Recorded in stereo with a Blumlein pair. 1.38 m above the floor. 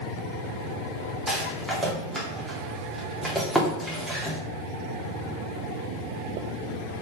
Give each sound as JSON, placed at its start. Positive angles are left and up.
{"t": 1.3, "sound": "a rattle", "azimuth_deg": -5, "distance_m": 2.5}